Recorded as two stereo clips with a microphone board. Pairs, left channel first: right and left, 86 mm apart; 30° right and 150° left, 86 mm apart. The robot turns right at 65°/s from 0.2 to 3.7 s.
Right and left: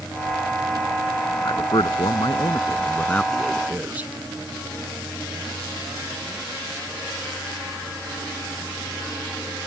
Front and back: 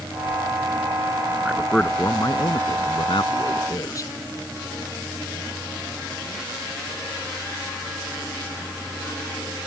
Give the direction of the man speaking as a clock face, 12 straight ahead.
4 o'clock.